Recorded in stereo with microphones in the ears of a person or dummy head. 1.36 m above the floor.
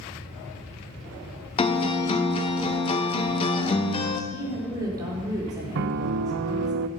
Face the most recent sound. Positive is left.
turn(degrees=-60)  # may be behind; listen again after turning